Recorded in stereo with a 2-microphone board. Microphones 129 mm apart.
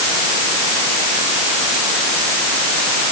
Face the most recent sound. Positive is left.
No sound to turn to.